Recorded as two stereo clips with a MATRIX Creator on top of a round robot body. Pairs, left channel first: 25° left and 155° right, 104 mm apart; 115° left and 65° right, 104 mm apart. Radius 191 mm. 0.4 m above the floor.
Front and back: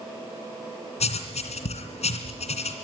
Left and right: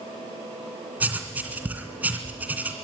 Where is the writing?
10° left, 3 m.